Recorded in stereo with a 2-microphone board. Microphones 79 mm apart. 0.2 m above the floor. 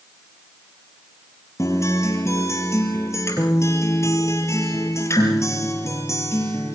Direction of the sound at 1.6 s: 35° left (ahead or behind).